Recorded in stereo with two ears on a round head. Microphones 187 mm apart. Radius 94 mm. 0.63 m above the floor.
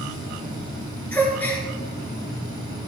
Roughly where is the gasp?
Centre.